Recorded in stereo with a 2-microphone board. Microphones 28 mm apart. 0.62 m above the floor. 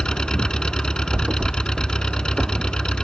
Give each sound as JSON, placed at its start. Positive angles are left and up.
{"t": 0.0, "sound": "an engine running", "side_deg": 30}
{"t": 1.1, "sound": "a thud", "side_deg": -45}